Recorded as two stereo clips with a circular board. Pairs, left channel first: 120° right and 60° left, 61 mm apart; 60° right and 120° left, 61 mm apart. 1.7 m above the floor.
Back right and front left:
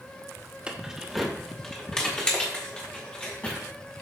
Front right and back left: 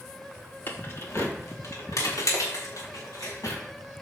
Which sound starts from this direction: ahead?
Keys jangling, at 0.7 s.